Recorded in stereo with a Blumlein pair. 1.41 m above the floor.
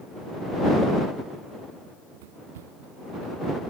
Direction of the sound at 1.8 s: 50° right.